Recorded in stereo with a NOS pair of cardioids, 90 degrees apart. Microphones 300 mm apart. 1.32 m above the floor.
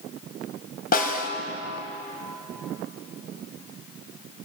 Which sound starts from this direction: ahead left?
A snare drum, at 0.9 s.